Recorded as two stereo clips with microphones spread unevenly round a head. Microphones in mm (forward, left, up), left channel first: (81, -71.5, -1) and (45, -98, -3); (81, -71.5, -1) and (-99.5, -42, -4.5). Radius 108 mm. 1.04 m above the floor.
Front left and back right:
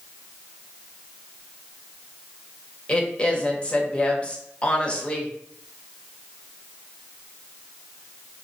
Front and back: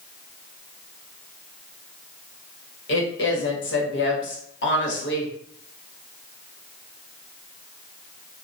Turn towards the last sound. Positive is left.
turn(degrees=-30)